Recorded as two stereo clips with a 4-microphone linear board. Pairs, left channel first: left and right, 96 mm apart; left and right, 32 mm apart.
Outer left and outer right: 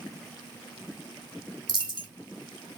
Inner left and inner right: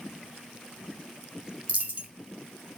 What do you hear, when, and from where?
1.7 s a dropped coin: 50° right (ahead or behind), 0.8 m